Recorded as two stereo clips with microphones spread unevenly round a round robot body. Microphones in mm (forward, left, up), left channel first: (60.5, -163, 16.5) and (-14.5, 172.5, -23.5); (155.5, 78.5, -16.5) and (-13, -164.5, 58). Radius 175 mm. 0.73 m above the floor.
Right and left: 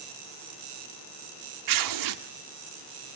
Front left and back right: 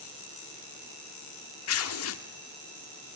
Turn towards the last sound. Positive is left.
turn(degrees=85)